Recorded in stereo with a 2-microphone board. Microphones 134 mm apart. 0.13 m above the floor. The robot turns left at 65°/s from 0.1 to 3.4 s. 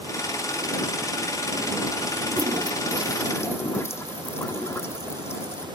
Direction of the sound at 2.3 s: 125° right.